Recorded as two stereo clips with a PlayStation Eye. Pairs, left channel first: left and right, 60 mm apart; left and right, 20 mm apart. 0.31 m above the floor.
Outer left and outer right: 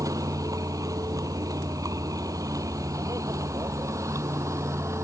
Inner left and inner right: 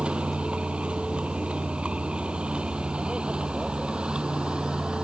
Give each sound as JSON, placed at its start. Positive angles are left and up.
{"t": 0.0, "sound": "a vehicle", "side_deg": -75}